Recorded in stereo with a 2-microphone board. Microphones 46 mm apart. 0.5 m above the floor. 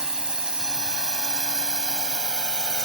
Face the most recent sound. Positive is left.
turn(degrees=-15)  # may be behind; listen again after turning